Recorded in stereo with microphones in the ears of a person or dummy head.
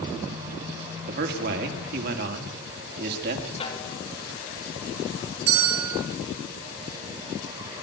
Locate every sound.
1.1 s a man speaking: 55° right (ahead or behind), 2.5 m
3.6 s a snare drum: 30° left (ahead or behind), 2.5 m
5.5 s a bell: 85° right, 3 m